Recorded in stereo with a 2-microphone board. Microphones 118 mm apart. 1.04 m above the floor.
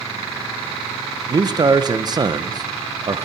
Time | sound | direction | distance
1.3 | a man speaking | 40° right (ahead or behind) | 0.7 m